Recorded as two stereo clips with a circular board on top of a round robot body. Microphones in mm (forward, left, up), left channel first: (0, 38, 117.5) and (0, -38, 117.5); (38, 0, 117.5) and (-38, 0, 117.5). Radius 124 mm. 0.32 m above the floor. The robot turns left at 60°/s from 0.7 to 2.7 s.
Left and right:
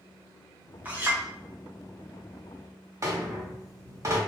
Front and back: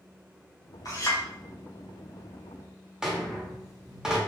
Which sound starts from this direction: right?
A rattle, at 3.0 s.